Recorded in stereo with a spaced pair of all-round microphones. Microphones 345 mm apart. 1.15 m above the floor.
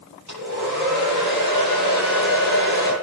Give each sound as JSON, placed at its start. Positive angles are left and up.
{"t": 0.3, "sound": "a hair dryer", "side_deg": -55, "distance_m": 9.5}